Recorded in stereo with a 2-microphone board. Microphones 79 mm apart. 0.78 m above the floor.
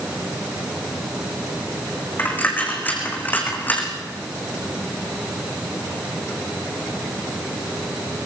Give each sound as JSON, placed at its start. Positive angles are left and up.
{"t": 2.2, "sound": "a dropped coin", "side_deg": 25, "distance_m": 3.5}